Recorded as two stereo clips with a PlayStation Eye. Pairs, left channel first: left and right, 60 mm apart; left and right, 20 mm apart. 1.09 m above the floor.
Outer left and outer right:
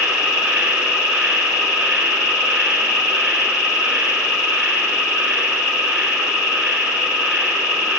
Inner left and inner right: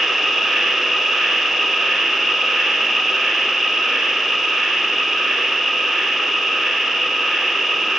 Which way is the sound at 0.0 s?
15° right (ahead or behind).